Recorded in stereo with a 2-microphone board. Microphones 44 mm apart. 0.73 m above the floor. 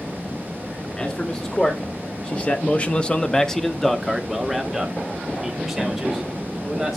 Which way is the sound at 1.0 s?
25° left (ahead or behind).